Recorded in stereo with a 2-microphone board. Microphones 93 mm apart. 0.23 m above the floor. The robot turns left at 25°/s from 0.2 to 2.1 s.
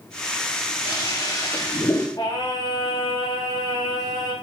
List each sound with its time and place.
0.8 s a toilet flushing: 60° left, 9 m; by 2.1 s 30° left, 9 m
2.2 s singing: 45° left (ahead or behind), 7.5 m